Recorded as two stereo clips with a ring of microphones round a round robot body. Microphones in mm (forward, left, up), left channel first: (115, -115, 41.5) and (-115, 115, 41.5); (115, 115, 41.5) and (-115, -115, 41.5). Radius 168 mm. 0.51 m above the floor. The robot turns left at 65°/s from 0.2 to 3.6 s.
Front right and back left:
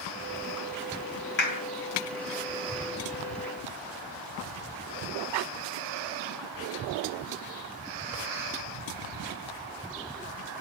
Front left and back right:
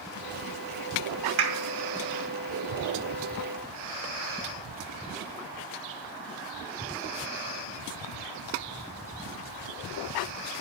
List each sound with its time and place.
1.4 s a clap: 100° right, 2.5 m; by 1.6 s 115° right, 2.5 m